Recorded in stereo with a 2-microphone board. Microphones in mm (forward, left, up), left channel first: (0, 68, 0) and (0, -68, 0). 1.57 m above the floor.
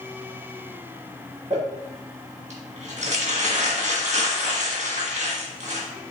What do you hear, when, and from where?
1.5 s crumpling: 55° right (ahead or behind), 1.5 m